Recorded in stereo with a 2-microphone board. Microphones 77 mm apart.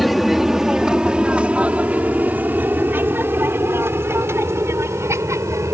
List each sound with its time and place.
0.0 s an aircraft: centre (ahead or behind); by 5.7 s 40° right (ahead or behind)